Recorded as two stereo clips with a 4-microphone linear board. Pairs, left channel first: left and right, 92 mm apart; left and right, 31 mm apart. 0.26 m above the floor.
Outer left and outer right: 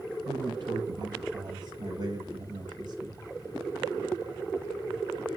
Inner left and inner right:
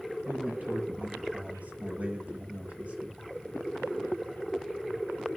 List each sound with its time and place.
0.2 s a man speaking: 55° right (ahead or behind), 6 m; by 3.2 s 50° right (ahead or behind), 5 m